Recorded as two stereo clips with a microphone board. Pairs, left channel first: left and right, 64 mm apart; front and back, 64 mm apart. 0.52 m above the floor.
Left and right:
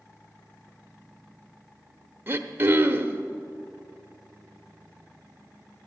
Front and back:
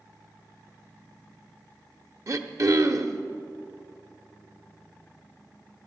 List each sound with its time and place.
2.3 s throat clearing: 145° right, 0.8 m